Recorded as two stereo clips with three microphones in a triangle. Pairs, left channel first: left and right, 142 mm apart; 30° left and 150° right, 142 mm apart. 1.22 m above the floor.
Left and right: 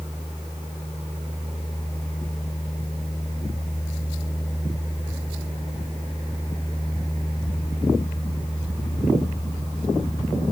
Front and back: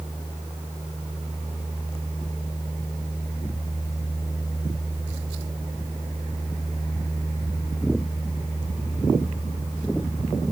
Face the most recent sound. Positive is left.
No sound to turn to.